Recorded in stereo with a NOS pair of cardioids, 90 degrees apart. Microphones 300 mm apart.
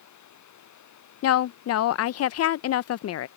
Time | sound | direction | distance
0.0 | running water | 70° left | ?
1.2 | a woman speaking | 55° left | ?